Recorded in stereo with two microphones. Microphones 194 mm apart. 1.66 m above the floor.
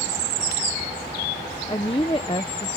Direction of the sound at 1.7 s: 25° left (ahead or behind).